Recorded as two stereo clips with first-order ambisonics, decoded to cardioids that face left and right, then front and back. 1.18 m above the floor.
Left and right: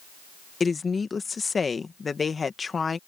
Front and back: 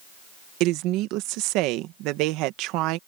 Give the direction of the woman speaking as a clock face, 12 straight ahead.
7 o'clock.